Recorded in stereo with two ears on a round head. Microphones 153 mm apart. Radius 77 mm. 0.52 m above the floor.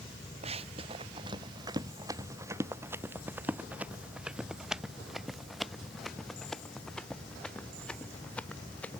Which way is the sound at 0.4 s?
40° right (ahead or behind).